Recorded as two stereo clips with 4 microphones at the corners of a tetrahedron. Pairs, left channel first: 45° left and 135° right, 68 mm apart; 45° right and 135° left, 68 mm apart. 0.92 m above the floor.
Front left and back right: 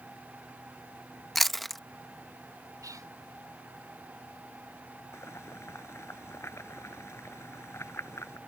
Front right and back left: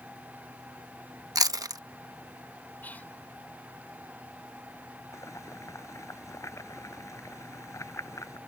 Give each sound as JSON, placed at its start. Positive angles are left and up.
{"t": 1.4, "sound": "chewing", "azimuth_deg": 130}
{"t": 2.8, "sound": "whispering", "azimuth_deg": -110}
{"t": 5.1, "sound": "boiling", "azimuth_deg": -5}